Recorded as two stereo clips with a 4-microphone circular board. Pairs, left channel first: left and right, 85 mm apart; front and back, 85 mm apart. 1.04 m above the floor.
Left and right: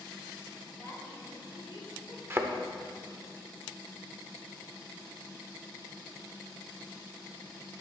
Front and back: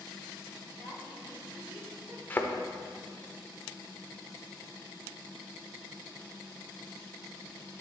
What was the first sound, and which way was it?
A woman speaking, 150° left.